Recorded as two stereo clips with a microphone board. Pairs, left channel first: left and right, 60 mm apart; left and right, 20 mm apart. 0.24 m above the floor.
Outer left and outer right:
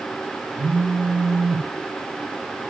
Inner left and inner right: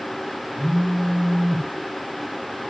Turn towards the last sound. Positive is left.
turn(degrees=-60)  # may be behind; listen again after turning